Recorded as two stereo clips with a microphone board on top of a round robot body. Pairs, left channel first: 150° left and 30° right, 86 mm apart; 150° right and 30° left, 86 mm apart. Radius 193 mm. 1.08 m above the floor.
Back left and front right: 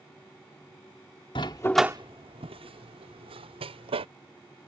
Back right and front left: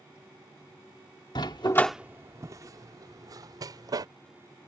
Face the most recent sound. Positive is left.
turn(degrees=-15)